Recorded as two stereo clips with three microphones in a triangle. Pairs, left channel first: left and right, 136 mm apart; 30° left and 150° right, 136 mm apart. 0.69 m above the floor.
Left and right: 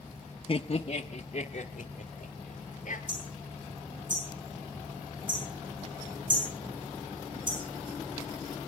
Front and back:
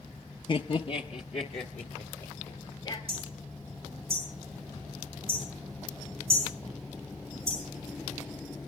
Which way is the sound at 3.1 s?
105° right.